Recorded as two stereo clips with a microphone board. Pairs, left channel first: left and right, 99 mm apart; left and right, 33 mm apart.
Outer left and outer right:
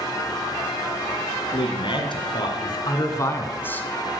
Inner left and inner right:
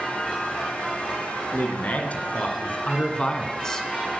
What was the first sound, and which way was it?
A man speaking, 55° left (ahead or behind).